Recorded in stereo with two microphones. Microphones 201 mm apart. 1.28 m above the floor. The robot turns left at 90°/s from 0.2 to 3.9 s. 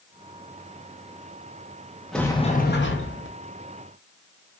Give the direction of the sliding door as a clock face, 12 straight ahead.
6 o'clock.